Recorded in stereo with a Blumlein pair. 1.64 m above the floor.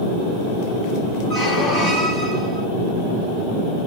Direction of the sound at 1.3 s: 25° left.